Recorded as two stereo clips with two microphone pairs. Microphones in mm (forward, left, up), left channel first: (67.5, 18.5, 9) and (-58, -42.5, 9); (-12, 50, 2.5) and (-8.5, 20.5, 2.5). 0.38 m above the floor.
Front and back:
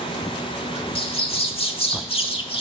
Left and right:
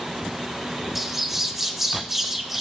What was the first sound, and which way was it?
A bird, straight ahead.